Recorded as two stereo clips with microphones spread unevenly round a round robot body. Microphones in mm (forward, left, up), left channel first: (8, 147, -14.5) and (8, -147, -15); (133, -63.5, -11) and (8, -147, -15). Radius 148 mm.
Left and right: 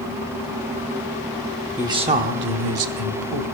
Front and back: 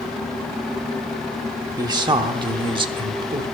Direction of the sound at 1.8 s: 165° right.